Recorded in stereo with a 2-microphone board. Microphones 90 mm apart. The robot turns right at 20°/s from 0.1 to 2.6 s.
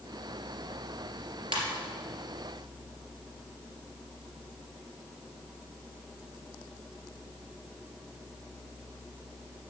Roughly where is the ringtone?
Right.